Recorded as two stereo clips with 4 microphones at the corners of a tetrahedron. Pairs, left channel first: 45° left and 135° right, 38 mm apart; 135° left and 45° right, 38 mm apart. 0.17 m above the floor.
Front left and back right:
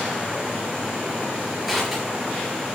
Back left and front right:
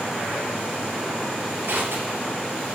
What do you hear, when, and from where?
1.6 s crushing: 50° right, 3.5 m